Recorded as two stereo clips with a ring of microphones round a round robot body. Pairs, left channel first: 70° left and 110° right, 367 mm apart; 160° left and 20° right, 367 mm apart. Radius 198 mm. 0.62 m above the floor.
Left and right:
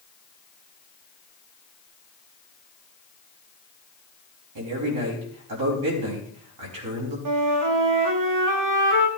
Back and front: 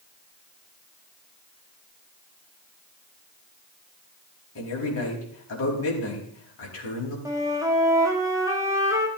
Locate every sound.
4.5 s a man speaking: 150° right, 4.5 m
7.2 s a flute: 100° right, 1.8 m